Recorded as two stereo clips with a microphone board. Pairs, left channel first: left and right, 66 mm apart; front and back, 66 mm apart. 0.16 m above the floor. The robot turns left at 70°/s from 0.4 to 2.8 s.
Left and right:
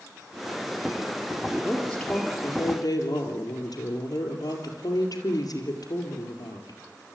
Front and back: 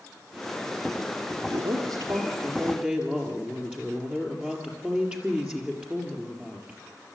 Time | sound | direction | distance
1.4 | a woman speaking | 155° right | 4 m